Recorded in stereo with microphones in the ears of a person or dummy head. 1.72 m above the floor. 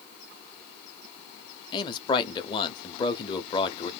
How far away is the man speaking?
About 0.6 m.